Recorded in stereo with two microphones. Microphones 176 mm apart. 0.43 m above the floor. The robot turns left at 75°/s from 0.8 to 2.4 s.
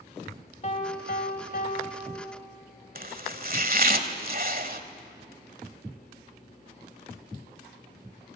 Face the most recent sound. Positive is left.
turn(degrees=-55)  # may be behind; listen again after turning